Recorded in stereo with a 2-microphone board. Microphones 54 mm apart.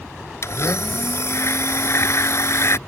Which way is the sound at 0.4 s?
55° left (ahead or behind).